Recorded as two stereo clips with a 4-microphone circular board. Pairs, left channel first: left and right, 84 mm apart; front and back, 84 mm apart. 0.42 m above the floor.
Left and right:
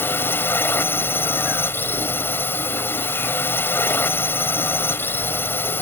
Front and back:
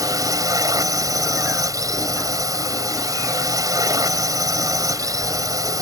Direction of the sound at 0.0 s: 150° left.